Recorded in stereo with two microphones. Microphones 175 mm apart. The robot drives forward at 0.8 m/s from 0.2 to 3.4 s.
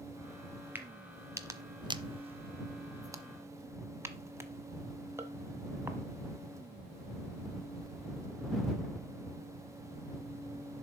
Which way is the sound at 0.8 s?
10° right (ahead or behind).